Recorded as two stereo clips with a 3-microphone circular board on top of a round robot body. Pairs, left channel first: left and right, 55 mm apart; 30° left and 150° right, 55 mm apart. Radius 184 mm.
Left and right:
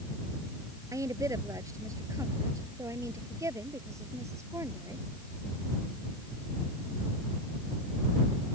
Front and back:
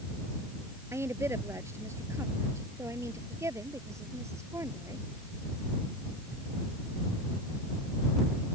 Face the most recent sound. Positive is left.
turn(degrees=-120)